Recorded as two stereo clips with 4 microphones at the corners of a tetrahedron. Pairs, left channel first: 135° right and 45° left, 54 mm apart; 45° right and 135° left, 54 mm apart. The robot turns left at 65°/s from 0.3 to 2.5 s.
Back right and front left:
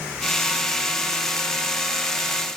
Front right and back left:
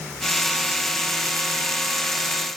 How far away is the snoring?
No snoring in this recording.